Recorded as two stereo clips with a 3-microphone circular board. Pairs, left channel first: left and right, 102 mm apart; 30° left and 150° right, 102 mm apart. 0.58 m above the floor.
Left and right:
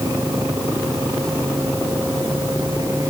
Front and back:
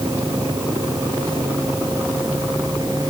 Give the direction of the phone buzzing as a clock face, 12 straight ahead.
I don't hear a phone buzzing.